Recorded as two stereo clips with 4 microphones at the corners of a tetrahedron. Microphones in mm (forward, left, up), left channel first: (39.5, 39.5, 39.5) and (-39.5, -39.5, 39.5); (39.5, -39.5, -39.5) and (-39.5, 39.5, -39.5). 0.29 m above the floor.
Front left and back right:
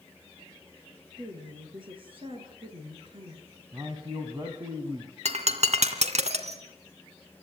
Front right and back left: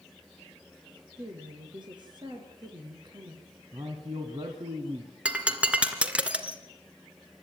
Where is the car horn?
I don't hear a car horn.